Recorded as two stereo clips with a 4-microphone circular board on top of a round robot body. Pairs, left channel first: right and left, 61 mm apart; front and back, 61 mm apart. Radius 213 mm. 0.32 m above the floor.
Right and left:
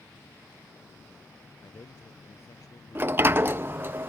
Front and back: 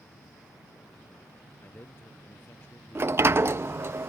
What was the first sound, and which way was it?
A man speaking, 55° right.